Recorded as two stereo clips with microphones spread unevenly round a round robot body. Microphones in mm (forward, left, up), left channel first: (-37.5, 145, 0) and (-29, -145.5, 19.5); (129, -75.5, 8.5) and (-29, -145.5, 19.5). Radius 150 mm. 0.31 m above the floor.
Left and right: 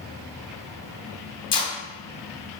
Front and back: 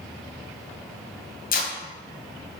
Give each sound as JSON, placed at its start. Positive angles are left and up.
{"t": 1.5, "sound": "tape being pulled", "azimuth_deg": 20, "distance_m": 2.0}